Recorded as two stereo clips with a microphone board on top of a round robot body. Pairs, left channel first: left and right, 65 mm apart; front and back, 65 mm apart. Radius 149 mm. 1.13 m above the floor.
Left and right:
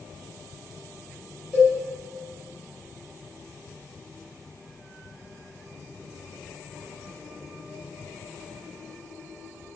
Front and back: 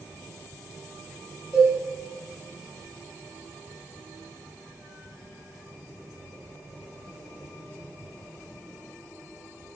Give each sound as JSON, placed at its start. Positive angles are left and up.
{"t": 1.5, "sound": "a cowbell", "azimuth_deg": -5, "distance_m": 0.6}